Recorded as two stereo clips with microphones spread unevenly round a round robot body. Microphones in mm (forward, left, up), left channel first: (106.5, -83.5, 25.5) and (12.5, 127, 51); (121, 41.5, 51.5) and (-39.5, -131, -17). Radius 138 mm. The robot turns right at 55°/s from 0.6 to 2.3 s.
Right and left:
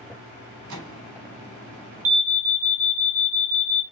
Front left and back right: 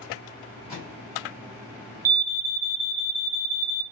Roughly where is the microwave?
Behind left.